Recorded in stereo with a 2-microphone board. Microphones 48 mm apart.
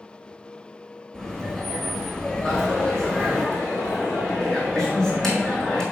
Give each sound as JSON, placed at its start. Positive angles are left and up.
{"t": 1.1, "sound": "laughter", "side_deg": 5, "distance_m": 3.0}
{"t": 2.5, "sound": "a dropped coin", "side_deg": 10, "distance_m": 2.5}